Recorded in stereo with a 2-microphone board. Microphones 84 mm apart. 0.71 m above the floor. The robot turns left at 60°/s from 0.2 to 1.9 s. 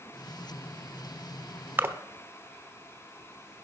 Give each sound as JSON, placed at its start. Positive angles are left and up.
{"t": 1.8, "sound": "a splash", "side_deg": -25, "distance_m": 0.9}